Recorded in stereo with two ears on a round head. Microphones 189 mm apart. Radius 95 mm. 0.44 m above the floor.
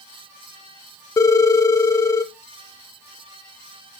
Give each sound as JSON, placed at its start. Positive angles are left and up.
{"t": 1.2, "sound": "a phone ringing", "side_deg": 15, "distance_m": 0.5}